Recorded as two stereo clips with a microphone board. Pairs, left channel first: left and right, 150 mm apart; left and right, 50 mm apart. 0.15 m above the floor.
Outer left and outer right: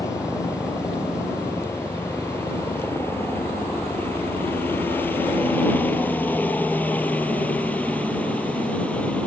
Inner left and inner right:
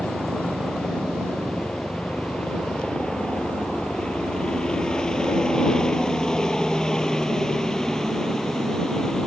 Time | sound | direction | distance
0.0 | a helicopter | 20° left (ahead or behind) | ?